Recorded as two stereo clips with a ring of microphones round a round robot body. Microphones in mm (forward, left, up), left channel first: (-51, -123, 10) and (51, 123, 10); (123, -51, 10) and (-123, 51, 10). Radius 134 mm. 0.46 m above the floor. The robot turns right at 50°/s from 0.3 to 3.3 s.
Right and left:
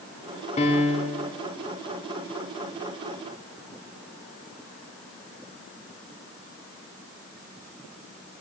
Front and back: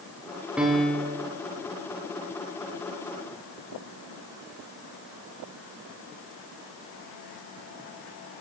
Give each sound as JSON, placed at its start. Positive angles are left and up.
{"t": 0.6, "sound": "a piano", "azimuth_deg": -120, "distance_m": 1.1}